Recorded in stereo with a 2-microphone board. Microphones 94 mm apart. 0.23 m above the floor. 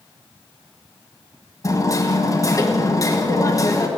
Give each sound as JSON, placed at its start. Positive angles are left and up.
{"t": 1.6, "sound": "hammering", "side_deg": 35, "distance_m": 1.7}